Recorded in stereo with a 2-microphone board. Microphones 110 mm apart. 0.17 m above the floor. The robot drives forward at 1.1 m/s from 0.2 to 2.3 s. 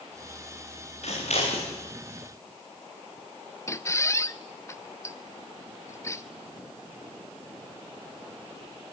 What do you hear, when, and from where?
1.0 s scissors: 70° left (ahead or behind), 8 m; by 1.7 s 65° left (ahead or behind), 8 m
3.7 s a squeak: 25° left (ahead or behind), 0.7 m